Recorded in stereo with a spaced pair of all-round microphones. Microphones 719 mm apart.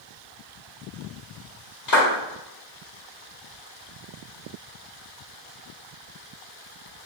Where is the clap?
70° left (ahead or behind), 1.1 m.